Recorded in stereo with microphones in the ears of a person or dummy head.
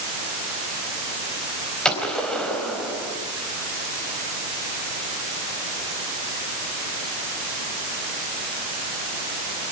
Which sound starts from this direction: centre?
A gunshot, at 1.9 s.